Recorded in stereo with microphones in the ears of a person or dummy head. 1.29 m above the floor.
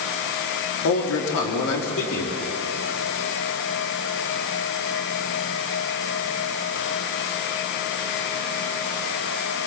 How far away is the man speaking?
About 3 m.